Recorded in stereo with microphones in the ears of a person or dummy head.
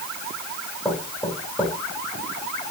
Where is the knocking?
10° left (ahead or behind), 6 m.